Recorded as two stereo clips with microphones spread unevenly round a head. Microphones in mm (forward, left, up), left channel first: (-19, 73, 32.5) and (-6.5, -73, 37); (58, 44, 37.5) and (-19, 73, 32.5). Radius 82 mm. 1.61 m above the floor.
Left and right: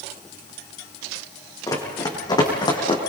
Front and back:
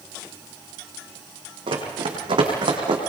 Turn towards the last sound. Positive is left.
turn(degrees=150)